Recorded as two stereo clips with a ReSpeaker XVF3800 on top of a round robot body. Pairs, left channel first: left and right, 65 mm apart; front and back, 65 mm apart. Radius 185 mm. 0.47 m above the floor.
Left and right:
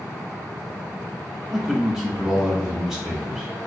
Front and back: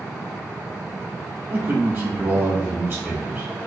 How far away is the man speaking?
About 1.5 m.